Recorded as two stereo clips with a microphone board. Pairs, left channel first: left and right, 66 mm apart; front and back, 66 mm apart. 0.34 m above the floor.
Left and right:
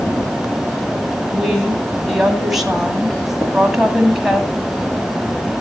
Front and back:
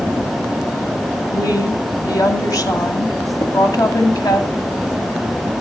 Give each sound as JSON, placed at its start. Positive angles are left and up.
{"t": 1.3, "sound": "a woman speaking", "azimuth_deg": -5, "distance_m": 2.5}
{"t": 3.4, "sound": "tapping", "azimuth_deg": 20, "distance_m": 3.0}